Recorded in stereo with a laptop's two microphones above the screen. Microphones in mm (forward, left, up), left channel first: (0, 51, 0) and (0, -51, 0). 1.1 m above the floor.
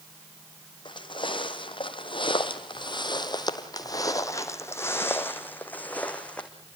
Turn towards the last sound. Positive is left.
turn(degrees=10)  # may be behind; listen again after turning